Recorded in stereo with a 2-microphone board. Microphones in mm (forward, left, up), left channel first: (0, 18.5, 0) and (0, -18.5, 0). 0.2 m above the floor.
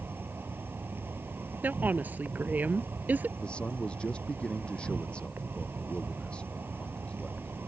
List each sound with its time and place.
0.0 s an insect: 75° right (ahead or behind)
1.6 s a woman speaking: 55° right (ahead or behind)
3.4 s a man speaking: 30° left (ahead or behind)